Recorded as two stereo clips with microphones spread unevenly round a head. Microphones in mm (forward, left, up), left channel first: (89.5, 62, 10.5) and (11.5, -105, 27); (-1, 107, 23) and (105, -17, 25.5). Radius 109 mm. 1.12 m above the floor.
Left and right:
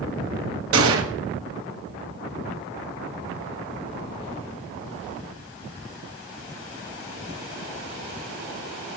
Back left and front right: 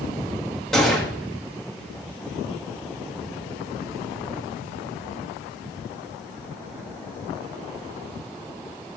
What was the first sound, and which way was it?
A gunshot, 140° right.